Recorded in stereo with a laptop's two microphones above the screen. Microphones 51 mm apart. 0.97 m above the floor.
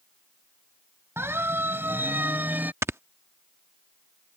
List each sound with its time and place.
1.2 s a siren: 55° right (ahead or behind); by 2.7 s 35° right (ahead or behind)
2.8 s snoring: 60° right (ahead or behind)